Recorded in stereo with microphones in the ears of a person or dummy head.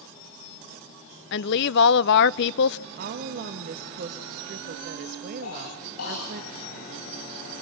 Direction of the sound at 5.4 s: 90° left.